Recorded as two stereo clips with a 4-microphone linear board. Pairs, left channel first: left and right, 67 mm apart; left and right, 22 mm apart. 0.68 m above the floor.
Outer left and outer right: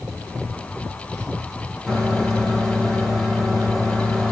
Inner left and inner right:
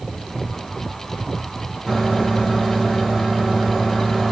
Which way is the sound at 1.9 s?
10° left (ahead or behind).